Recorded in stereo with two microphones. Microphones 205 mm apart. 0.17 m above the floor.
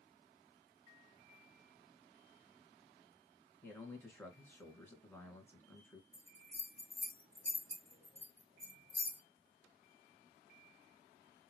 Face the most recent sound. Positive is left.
turn(degrees=-30)  # may be behind; listen again after turning